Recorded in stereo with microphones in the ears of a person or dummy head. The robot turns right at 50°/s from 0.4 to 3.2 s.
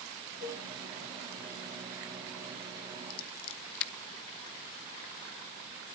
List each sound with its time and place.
0.4 s a cowbell: 60° left (ahead or behind), 2 m; by 0.7 s 75° left (ahead or behind), 2 m
3.1 s scissors: 70° left (ahead or behind), 0.9 m; by 3.9 s 75° left (ahead or behind), 0.9 m